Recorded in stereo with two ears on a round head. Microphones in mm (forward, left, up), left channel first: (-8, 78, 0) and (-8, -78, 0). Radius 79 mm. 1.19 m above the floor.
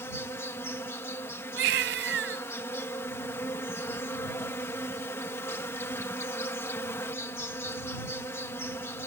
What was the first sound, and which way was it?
An insect, 15° left (ahead or behind).